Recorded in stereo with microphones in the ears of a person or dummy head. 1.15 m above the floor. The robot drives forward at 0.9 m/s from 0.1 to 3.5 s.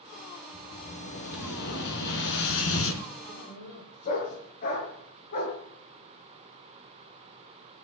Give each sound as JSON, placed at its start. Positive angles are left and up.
{"t": 0.5, "sound": "an explosion", "side_deg": 50, "distance_m": 4.5}
{"t": 3.3, "sound": "a dog barking", "side_deg": 50, "distance_m": 5.0}